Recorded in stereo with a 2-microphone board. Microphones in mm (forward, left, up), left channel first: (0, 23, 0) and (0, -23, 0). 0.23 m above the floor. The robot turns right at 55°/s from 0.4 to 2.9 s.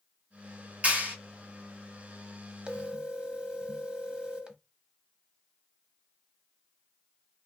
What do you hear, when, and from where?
0.8 s a clap: 30° right (ahead or behind), 1.9 m; by 1.1 s 45° right (ahead or behind), 1.9 m
2.7 s a phone ringing: 20° right (ahead or behind), 0.6 m; by 4.6 s 25° right (ahead or behind), 0.6 m